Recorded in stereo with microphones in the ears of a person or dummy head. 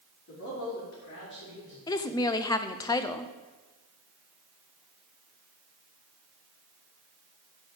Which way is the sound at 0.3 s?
85° left.